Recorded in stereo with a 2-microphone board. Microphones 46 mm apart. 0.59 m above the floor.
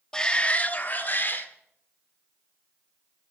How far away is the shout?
About 0.8 m.